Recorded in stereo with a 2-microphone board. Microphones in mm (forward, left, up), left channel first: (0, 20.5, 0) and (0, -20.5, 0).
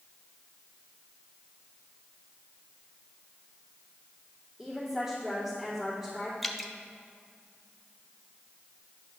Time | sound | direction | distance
4.6 | a woman speaking | 5° right (ahead or behind) | 2.5 m
6.4 | dripping | 5° left (ahead or behind) | 0.6 m